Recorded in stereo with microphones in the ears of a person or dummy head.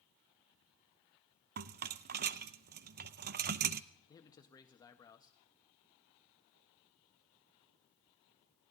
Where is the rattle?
50° right (ahead or behind), 0.6 m.